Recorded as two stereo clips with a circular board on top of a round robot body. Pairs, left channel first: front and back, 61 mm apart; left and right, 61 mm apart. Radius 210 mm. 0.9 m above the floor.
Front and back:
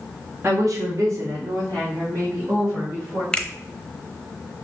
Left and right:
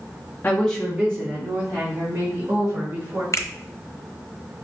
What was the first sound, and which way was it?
A woman speaking, 145° left.